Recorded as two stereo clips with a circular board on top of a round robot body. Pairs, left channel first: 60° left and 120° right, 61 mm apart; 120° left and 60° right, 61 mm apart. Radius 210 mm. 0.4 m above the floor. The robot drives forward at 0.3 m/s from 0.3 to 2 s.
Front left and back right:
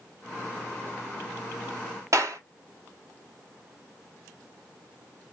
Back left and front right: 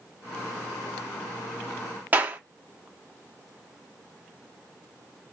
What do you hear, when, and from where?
2.1 s a clap: 115° right, 1.4 m